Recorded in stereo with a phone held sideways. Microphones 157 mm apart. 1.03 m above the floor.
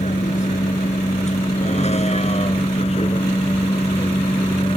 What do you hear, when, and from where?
0.0 s a vehicle: 50° left (ahead or behind); by 4.8 s 35° left (ahead or behind)